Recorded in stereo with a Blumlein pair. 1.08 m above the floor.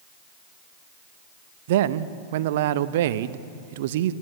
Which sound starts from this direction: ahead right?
A man speaking, at 1.7 s.